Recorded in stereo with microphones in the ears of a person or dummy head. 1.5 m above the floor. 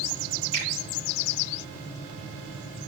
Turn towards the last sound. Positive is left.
turn(degrees=25)  # may be behind; listen again after turning